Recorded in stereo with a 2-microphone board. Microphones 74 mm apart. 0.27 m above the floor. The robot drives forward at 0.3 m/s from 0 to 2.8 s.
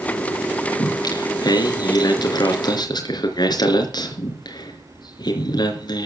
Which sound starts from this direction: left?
Singing, at 0.8 s.